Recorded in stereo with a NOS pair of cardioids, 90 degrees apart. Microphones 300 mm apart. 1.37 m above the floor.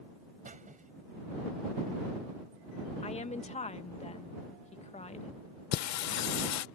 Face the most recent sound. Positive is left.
turn(degrees=70)